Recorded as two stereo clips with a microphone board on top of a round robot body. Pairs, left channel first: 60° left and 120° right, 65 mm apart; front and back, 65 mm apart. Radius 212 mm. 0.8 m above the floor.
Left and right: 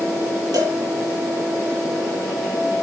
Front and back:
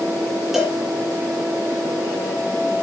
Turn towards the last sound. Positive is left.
turn(degrees=-95)